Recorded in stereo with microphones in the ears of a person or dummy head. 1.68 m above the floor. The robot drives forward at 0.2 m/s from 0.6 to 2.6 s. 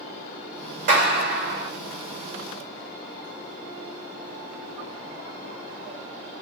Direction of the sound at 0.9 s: 60° right (ahead or behind).